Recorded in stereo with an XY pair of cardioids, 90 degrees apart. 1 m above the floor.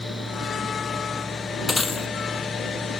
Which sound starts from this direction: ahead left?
Breaking glass, at 1.7 s.